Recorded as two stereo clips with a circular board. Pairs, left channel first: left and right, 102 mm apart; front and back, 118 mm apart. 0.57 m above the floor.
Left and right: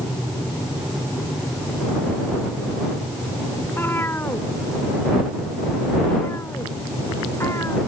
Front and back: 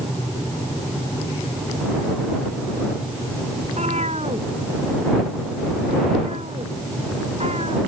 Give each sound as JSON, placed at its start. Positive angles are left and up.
{"t": 3.6, "sound": "a cat meowing", "azimuth_deg": 160}